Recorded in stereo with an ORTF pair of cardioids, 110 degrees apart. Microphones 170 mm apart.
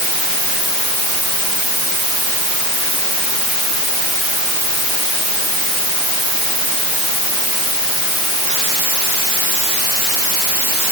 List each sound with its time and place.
Only background noise.